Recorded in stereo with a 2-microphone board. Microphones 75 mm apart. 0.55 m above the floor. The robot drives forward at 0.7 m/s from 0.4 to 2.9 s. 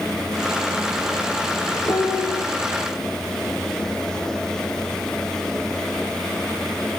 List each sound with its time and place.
1.9 s a piano: 35° left (ahead or behind), 2.5 m; by 2.4 s 30° left (ahead or behind), 3 m